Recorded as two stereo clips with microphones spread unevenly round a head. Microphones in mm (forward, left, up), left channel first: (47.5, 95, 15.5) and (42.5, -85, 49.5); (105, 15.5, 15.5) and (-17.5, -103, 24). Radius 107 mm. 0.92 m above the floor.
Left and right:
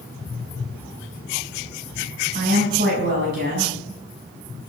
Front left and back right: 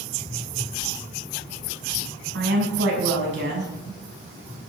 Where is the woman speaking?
140° right, 6.5 m.